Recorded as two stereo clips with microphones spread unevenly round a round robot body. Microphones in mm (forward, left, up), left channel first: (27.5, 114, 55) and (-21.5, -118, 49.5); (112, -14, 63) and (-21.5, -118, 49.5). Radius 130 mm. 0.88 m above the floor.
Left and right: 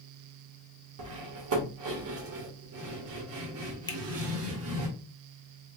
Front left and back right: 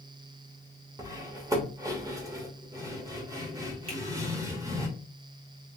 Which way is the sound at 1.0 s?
70° right.